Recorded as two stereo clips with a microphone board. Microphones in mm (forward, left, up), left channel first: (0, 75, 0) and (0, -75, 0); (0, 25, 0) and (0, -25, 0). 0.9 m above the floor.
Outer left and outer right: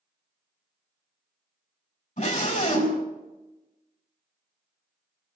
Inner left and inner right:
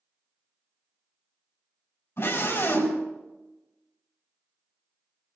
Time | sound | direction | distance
2.2 | a scream | 60° left (ahead or behind) | 5.5 m